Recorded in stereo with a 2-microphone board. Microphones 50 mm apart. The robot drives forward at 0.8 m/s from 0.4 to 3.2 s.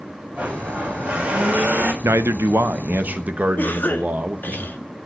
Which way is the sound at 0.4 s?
25° right (ahead or behind).